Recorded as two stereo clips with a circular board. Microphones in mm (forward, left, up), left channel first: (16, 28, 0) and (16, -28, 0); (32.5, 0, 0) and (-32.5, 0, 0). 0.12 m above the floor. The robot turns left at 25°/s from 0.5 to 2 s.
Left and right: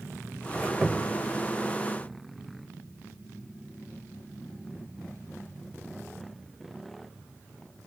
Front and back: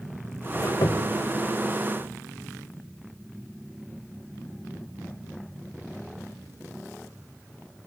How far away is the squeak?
About 1.6 m.